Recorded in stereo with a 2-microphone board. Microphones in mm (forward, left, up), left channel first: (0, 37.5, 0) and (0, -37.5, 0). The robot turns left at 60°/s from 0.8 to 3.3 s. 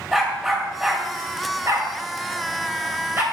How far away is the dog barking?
About 1.9 m.